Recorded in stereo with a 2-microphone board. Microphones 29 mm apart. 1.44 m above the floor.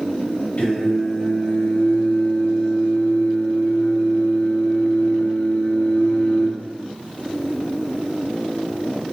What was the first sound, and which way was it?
Singing, 65° left (ahead or behind).